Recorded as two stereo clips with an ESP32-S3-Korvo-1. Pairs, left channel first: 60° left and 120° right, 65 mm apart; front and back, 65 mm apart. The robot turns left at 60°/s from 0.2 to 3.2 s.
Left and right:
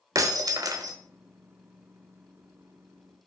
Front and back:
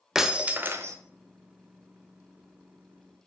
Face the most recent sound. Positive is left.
turn(degrees=80)